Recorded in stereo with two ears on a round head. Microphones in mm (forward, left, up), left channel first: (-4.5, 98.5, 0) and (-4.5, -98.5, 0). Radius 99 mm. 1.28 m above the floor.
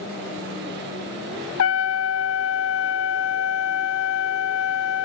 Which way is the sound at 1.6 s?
70° left (ahead or behind).